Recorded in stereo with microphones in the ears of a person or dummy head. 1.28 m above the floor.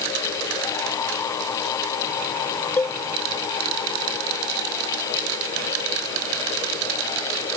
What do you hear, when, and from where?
2.8 s a cowbell: 10° left (ahead or behind)